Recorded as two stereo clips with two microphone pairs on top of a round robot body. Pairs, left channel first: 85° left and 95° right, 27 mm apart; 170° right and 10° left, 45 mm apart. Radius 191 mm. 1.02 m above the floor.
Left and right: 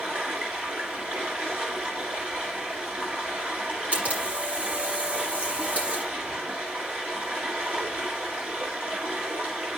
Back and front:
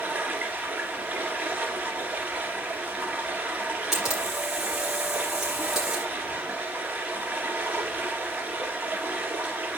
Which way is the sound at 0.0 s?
55° right.